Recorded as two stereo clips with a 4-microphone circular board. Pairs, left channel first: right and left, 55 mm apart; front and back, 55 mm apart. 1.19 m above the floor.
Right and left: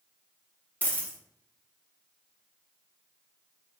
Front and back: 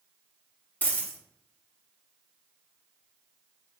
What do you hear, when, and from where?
0.8 s a dropped coin: 40° right, 1.1 m